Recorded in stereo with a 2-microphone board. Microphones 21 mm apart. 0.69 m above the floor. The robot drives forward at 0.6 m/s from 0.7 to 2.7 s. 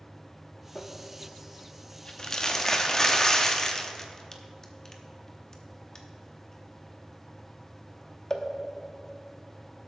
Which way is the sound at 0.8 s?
35° left (ahead or behind).